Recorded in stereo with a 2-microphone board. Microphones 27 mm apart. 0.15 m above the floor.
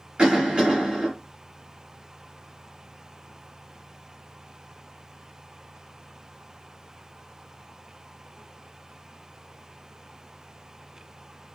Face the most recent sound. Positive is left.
turn(degrees=-30)  # may be behind; listen again after turning